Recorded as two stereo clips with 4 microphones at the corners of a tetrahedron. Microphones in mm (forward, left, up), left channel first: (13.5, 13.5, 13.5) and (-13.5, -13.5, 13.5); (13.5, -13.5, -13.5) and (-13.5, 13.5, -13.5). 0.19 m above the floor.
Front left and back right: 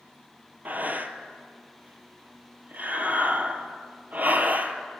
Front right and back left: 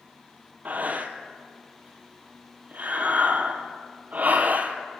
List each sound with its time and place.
0.7 s breathing: straight behind, 0.9 m